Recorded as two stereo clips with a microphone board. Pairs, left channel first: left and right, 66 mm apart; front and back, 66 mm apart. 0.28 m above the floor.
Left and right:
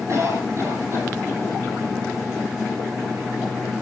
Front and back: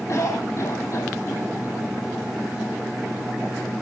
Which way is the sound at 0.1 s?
40° right.